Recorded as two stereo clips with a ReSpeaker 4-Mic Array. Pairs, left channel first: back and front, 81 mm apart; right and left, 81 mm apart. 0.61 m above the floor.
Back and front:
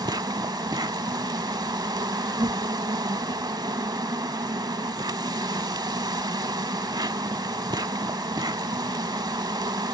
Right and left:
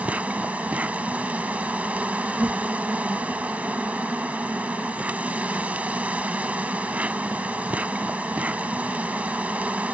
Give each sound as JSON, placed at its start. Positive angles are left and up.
{"t": 0.0, "sound": "an insect", "azimuth_deg": 20}